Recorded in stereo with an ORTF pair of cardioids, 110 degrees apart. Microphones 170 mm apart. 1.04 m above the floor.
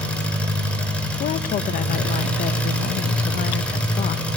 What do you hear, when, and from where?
0.0 s an engine running: 5° left, 4.5 m
1.2 s a woman speaking: 55° left, 0.7 m